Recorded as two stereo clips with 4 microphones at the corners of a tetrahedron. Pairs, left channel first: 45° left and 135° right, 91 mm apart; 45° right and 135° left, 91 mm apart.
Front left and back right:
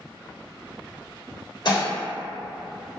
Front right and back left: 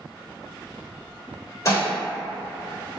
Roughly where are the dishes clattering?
Ahead.